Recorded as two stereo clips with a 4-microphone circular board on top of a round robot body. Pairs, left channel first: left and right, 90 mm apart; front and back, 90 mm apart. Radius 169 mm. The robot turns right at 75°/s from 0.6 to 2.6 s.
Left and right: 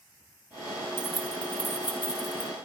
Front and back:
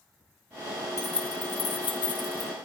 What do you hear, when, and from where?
1.0 s keys jangling: 50° right, 3 m; by 2.5 s 65° left, 3 m